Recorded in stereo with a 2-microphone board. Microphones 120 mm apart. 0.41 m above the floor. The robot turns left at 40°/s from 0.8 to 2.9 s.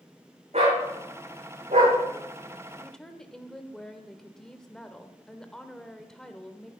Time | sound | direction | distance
0.5 | a dog barking | 65° right (ahead or behind) | 7.5 m
2.8 | a woman speaking | 10° left (ahead or behind) | 1.3 m